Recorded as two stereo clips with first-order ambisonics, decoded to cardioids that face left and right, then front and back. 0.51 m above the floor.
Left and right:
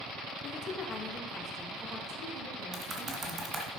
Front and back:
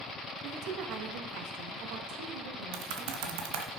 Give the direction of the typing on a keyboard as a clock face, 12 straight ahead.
6 o'clock.